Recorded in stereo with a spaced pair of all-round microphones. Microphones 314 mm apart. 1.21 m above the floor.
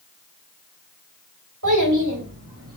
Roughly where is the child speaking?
Right.